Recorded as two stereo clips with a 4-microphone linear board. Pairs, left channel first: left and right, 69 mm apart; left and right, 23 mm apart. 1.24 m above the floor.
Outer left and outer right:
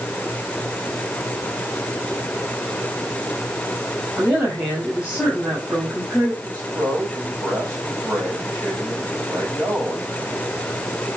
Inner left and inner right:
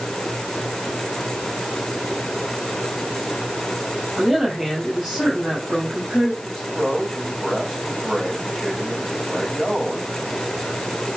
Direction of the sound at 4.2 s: 25° right (ahead or behind).